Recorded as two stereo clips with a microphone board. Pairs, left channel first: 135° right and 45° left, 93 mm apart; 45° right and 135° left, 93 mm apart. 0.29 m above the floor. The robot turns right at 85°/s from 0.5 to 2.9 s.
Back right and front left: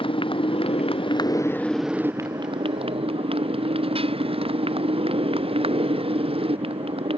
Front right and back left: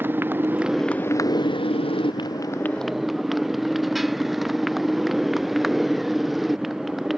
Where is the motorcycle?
155° right; by 7.2 s 45° left.